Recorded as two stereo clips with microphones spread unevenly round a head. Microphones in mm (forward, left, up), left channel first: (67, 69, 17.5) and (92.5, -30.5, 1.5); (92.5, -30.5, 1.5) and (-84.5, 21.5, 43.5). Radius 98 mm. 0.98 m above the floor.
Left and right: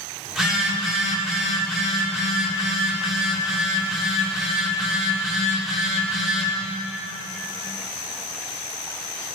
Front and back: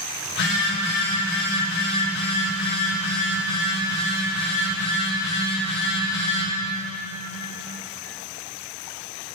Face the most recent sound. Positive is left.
turn(degrees=10)